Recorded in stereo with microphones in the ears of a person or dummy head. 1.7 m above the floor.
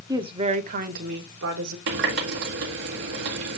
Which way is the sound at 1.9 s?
50° right (ahead or behind).